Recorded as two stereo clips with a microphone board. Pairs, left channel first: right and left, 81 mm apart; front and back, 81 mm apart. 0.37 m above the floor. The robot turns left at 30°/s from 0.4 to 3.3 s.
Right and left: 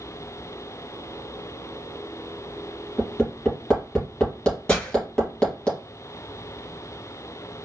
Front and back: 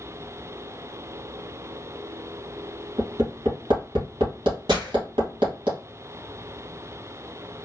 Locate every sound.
3.0 s hammering: 160° right, 2.5 m; by 5.7 s 170° right, 2.5 m
4.7 s breaking glass: 165° right, 2.5 m